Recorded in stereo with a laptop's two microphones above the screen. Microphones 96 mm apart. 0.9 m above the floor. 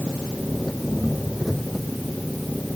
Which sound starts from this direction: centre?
An engine running, at 0.0 s.